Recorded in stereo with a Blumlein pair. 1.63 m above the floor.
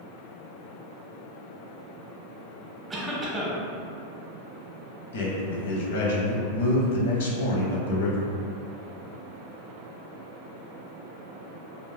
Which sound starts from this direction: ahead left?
A man speaking, at 5.1 s.